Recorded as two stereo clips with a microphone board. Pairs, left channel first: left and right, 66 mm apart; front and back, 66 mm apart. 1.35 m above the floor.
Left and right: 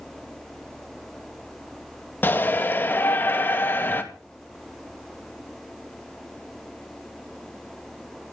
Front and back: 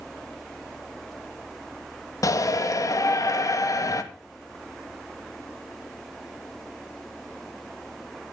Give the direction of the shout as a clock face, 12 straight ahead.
11 o'clock.